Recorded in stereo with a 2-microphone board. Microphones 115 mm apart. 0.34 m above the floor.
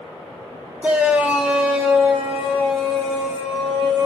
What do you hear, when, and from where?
0.8 s a shout: 10° right (ahead or behind), 1.2 m; by 4.1 s 5° right (ahead or behind), 3 m